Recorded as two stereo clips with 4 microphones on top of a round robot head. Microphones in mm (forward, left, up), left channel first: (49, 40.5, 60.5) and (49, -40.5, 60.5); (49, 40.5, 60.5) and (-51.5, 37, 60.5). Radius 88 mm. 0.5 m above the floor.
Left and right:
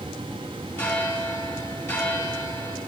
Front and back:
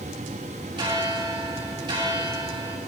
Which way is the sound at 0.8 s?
150° left.